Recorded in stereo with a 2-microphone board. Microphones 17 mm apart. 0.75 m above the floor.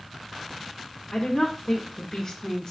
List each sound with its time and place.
1.1 s a woman speaking: 45° left (ahead or behind), 1.0 m